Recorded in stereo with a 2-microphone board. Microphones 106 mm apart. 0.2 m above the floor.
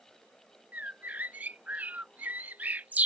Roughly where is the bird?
Centre.